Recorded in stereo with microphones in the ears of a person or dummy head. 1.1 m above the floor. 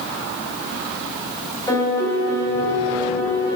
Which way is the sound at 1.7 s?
20° left (ahead or behind).